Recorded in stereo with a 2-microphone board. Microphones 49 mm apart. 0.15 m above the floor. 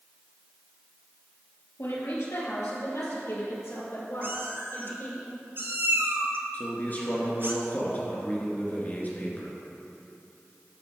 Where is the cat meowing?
50° right (ahead or behind), 1.0 m.